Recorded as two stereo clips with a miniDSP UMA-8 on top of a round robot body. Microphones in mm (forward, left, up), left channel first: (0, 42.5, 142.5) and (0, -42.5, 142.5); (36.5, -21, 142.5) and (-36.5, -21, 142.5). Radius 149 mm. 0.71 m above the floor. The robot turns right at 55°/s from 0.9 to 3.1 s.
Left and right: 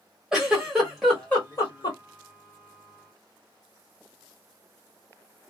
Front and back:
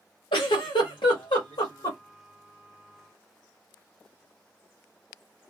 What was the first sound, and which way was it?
A giggle, 5° right.